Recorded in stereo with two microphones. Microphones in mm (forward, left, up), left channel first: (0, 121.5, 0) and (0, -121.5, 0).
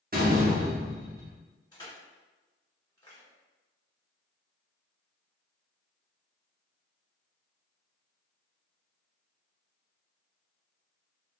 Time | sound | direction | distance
0.1 | a door slam | 35° right (ahead or behind) | 0.9 m
1.7 | crushing | 15° left (ahead or behind) | 1.8 m